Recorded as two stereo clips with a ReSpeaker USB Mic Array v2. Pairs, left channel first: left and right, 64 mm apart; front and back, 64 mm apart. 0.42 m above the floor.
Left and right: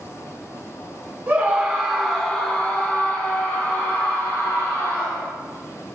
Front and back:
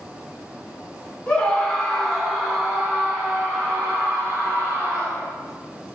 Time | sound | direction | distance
1.3 | a scream | 60° right | 1.4 m